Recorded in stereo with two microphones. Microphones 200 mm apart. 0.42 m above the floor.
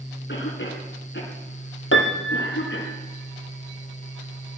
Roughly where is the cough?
Left.